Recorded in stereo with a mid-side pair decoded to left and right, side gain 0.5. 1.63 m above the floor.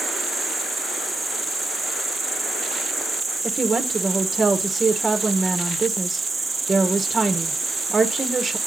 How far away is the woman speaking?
About 1.3 m.